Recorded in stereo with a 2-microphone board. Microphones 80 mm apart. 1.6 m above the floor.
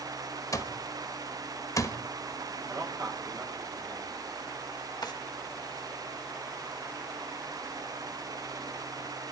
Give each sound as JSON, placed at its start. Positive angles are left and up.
{"t": 0.5, "sound": "an alarm clock", "side_deg": 45, "distance_m": 1.1}
{"t": 2.7, "sound": "a man speaking", "side_deg": -55, "distance_m": 6.0}
{"t": 5.0, "sound": "a drawer", "side_deg": 60, "distance_m": 1.6}